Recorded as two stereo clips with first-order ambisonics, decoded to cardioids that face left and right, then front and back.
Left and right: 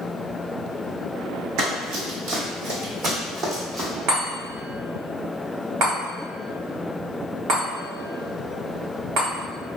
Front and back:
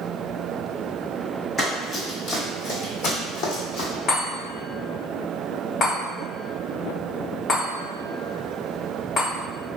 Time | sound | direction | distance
1.6 | running footsteps | 65° right | 1.9 m
4.1 | a chime | 55° right | 1.5 m